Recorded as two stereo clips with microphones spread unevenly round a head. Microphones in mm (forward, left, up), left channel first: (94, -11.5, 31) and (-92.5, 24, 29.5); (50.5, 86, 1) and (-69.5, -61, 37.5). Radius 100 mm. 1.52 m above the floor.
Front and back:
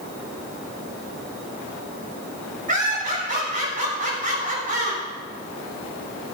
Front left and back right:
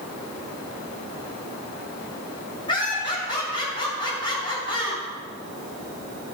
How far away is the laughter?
About 7 m.